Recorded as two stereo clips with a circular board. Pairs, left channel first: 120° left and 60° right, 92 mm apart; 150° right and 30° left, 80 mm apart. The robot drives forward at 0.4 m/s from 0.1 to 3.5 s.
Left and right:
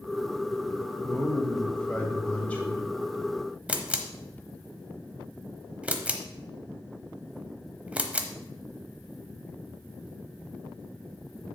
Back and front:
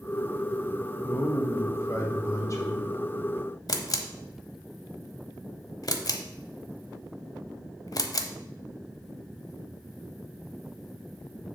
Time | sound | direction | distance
1.0 | a man speaking | 165° right | 1.6 m
3.7 | a camera shutter | 130° right | 0.8 m